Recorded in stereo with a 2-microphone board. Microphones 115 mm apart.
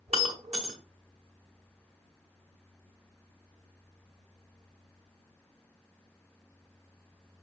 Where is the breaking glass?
65° right (ahead or behind), 1.6 m.